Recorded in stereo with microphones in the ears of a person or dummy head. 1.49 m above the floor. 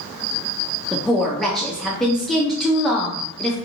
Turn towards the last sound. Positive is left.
turn(degrees=0)  # may be behind; listen again after turning